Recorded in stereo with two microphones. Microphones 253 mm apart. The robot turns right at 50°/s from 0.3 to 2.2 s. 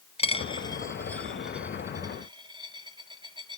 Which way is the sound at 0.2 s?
25° left (ahead or behind).